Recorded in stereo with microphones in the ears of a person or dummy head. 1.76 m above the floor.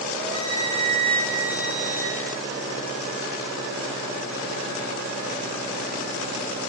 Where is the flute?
40° right (ahead or behind), 2.5 m.